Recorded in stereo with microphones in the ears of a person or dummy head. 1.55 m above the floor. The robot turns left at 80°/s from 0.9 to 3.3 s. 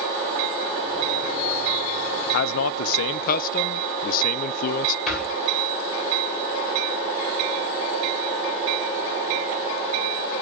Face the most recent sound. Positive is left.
turn(degrees=5)  # may be behind; listen again after turning